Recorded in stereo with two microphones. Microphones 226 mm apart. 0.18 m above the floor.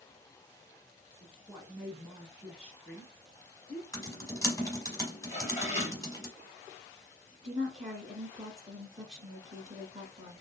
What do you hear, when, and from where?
1.2 s a woman speaking: 5° left (ahead or behind), 1.3 m
3.9 s typing on a keyboard: 15° left (ahead or behind), 1.0 m
5.3 s dishes clattering: 30° left (ahead or behind), 2 m
7.4 s a woman speaking: 30° right (ahead or behind), 1.5 m